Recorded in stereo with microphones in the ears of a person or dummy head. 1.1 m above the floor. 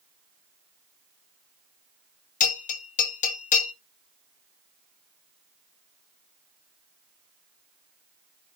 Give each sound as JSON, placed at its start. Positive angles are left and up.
{"t": 2.4, "sound": "a bell", "side_deg": 45, "distance_m": 1.6}